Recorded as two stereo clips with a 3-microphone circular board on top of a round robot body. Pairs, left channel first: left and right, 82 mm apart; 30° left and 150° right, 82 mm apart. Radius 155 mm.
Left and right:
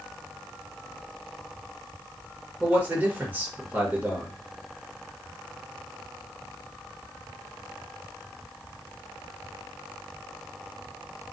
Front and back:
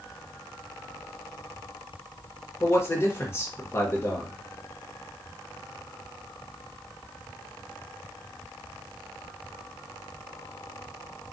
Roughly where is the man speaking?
Ahead right.